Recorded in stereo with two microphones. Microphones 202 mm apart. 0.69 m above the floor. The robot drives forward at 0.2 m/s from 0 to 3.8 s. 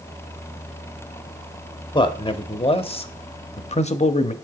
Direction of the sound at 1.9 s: 25° left (ahead or behind).